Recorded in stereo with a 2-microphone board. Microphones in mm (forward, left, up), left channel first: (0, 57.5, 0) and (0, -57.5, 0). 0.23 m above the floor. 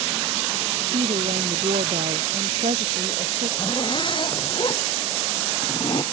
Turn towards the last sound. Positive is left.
turn(degrees=45)  # may be behind; listen again after turning